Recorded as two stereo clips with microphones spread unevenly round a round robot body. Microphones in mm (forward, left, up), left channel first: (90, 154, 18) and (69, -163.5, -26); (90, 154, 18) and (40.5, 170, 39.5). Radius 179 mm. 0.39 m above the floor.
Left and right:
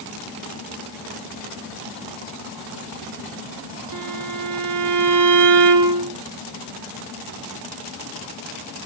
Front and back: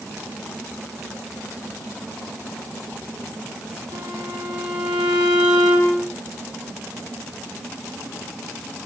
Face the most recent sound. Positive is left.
turn(degrees=-140)